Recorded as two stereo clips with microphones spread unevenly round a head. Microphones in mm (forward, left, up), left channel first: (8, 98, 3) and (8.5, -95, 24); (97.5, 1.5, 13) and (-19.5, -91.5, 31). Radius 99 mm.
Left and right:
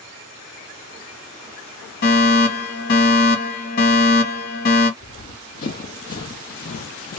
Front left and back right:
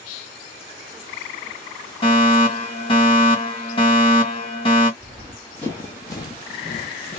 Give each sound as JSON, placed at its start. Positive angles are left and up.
{"t": 2.0, "sound": "a fire alarm", "azimuth_deg": 80, "distance_m": 2.0}
{"t": 5.0, "sound": "running footsteps", "azimuth_deg": 135, "distance_m": 1.7}